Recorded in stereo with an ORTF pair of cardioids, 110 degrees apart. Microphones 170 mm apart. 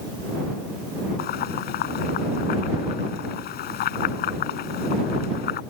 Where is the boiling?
65° left.